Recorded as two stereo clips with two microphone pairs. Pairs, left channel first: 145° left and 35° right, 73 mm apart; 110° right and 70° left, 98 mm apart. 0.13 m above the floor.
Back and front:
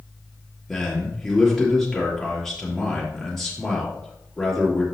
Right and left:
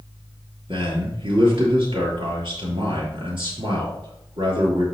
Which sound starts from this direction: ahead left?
A man speaking, at 0.7 s.